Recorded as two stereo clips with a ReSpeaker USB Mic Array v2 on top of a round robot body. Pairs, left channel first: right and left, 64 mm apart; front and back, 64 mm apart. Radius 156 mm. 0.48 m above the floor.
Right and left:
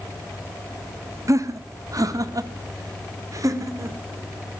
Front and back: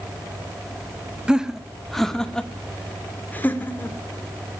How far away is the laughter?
About 1.4 m.